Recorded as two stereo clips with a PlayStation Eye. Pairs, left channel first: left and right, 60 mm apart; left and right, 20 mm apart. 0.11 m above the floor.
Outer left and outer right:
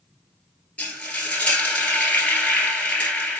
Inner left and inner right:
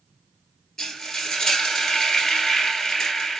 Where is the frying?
20° left (ahead or behind), 1.2 m.